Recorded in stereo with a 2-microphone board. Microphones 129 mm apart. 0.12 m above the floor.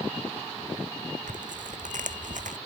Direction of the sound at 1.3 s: 80° right.